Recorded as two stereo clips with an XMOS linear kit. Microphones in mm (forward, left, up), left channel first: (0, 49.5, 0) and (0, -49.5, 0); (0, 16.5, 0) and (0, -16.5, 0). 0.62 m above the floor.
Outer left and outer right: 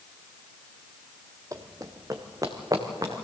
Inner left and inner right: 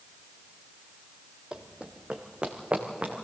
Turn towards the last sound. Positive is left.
turn(degrees=-35)  # may be behind; listen again after turning